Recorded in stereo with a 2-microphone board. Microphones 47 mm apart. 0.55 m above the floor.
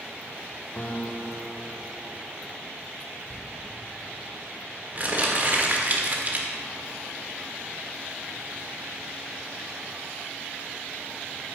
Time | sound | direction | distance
0.8 | a guitar | 40° left (ahead or behind) | 0.9 m
3.3 | crumpling | 40° right (ahead or behind) | 1.5 m